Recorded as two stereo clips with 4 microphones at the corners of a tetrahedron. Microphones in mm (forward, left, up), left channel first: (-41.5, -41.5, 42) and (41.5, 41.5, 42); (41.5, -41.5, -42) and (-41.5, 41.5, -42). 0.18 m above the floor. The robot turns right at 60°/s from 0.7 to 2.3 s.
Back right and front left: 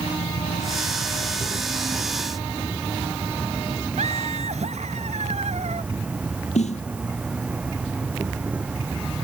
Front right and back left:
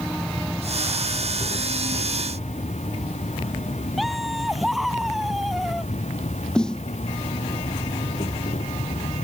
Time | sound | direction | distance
0.0 | an insect | 130° right | ?
4.0 | laughter | 45° left | ?
6.5 | a snare drum | 130° right | ?